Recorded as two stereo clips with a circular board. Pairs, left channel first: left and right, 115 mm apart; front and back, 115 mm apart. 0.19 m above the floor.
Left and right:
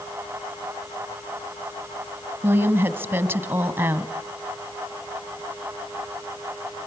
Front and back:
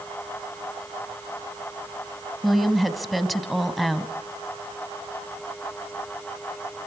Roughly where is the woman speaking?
Right.